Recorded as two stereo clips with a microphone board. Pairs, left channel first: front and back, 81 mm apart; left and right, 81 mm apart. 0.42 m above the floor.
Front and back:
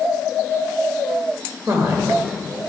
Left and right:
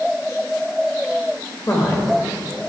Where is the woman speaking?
140° left, 1.4 m.